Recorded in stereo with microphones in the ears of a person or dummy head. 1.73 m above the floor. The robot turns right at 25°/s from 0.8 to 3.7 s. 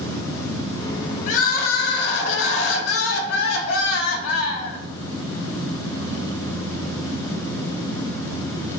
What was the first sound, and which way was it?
Crying, 45° left.